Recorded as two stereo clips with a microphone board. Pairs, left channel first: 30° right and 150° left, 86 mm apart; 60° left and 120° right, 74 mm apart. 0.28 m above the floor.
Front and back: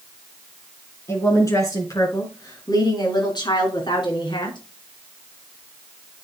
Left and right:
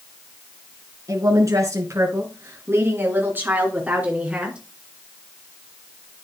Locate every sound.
1.1 s a woman speaking: 85° right, 3.5 m; by 4.6 s 45° right, 3.5 m